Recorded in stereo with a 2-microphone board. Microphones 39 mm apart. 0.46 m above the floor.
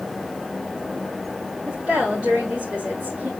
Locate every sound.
1.6 s a woman speaking: 30° right (ahead or behind), 4.5 m